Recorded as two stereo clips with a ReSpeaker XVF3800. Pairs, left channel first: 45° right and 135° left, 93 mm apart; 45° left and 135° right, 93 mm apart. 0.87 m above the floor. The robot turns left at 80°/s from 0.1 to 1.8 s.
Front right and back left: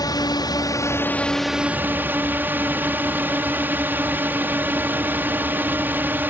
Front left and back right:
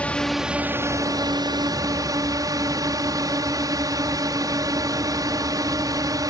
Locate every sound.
0.0 s a drone: 25° right; by 6.3 s 165° right